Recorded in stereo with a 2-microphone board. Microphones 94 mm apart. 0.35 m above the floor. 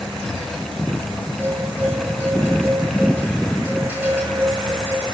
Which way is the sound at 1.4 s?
20° right (ahead or behind).